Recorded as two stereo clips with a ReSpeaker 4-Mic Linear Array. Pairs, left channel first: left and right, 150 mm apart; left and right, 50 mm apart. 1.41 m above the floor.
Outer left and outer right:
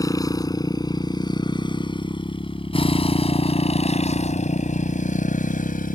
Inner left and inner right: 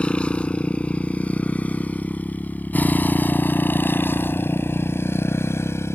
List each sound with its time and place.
0.0 s a motorcycle: 20° left (ahead or behind); by 6.0 s 65° left (ahead or behind)